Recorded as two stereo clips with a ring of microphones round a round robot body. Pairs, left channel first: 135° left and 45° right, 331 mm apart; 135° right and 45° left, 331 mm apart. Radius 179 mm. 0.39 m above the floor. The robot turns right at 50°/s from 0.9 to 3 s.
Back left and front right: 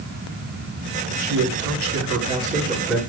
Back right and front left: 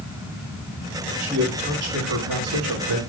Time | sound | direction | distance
1.2 | a man speaking | 45° right | 3.5 m